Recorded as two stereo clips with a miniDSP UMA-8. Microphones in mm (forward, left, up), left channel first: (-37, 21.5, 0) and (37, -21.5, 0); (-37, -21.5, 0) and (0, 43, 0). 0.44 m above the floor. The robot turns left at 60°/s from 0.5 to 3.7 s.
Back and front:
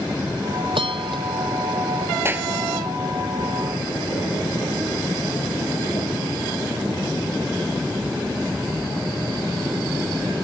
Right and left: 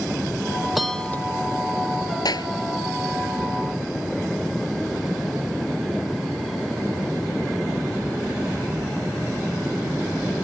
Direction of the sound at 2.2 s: 90° right.